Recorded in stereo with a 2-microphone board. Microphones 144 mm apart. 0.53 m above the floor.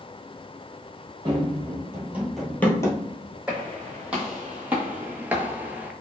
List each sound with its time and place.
1.2 s running footsteps: 35° right (ahead or behind), 1.1 m; by 3.4 s 40° left (ahead or behind), 0.9 m
3.5 s footsteps: 5° right (ahead or behind), 1.5 m; by 5.9 s 10° right (ahead or behind), 0.5 m